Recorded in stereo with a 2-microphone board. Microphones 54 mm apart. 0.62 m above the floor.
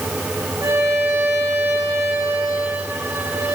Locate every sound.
0.6 s a violin: 65° right (ahead or behind), 9 m